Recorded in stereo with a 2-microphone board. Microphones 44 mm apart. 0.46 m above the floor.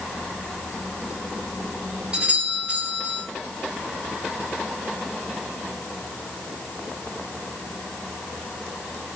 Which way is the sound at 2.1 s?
25° right (ahead or behind).